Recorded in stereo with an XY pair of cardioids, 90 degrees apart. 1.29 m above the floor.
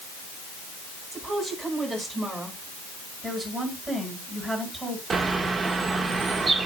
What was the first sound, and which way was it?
A woman speaking, 5° right.